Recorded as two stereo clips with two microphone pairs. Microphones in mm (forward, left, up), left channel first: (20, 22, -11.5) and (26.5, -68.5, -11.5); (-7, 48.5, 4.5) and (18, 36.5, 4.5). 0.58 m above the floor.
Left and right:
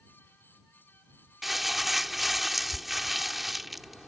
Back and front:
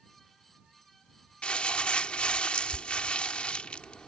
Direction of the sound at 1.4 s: 175° right.